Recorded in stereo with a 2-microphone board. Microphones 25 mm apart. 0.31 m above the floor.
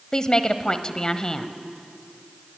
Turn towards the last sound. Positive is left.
turn(degrees=30)  # may be behind; listen again after turning